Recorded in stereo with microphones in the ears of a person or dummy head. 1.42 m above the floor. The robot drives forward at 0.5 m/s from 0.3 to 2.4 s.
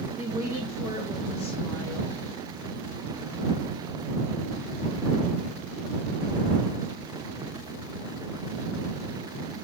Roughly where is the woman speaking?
Centre.